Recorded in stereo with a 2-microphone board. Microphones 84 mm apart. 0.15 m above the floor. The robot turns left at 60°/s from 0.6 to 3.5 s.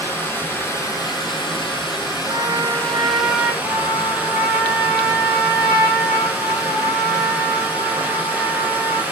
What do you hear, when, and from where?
0.0 s running water: 155° left, 0.9 m; by 9.1 s 20° right, 0.9 m
2.3 s a trumpet: 95° right, 1.3 m; by 3.5 s 170° right, 1.3 m
3.6 s a trumpet: 65° left (ahead or behind), 0.9 m